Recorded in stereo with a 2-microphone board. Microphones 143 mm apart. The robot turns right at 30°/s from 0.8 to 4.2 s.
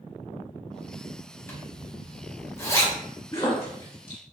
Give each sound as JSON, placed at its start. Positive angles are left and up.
{"t": 1.5, "sound": "a zipper", "side_deg": 15, "distance_m": 1.0}
{"t": 3.3, "sound": "a splash", "side_deg": 40, "distance_m": 1.9}